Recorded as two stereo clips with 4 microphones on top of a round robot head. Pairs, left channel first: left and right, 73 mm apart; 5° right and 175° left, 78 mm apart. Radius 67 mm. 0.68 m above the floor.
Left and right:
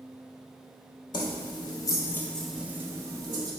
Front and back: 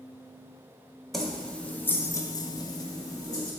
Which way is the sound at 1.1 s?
85° left.